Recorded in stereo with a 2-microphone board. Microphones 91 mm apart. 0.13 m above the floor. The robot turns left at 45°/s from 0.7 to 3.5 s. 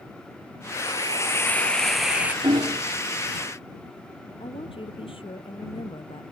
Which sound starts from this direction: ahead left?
A hiss, at 0.8 s.